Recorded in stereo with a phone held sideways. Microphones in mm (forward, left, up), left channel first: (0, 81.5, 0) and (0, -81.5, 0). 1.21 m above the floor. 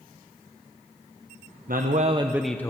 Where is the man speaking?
70° right (ahead or behind), 0.9 m; by 2.7 s 20° left (ahead or behind), 0.8 m.